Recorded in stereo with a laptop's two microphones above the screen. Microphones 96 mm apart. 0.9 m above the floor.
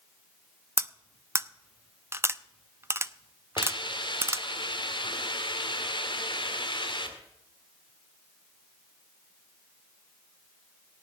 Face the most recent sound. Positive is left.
turn(degrees=55)  # may be behind; listen again after turning